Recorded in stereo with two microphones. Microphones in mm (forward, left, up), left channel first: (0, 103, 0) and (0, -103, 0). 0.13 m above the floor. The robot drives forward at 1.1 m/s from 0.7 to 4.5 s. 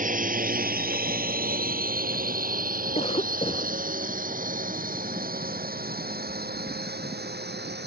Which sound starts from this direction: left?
A cough, at 3.0 s.